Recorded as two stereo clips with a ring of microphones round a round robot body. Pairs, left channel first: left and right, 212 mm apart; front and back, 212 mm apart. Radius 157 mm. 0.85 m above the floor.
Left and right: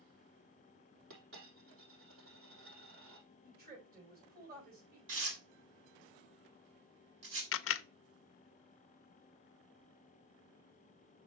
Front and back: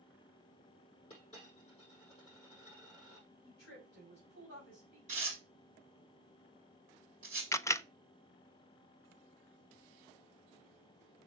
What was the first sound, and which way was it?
A dropped coin, 70° right.